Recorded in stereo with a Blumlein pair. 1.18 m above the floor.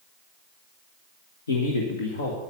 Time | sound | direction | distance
1.5 | a man speaking | 70° left | 1.6 m